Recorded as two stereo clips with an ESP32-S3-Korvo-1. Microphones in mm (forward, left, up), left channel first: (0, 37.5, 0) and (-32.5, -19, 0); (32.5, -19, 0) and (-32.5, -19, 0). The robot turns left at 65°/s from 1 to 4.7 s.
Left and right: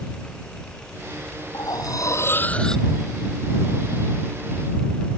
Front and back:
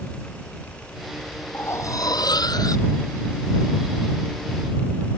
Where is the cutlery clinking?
55° left; by 2.9 s 30° right.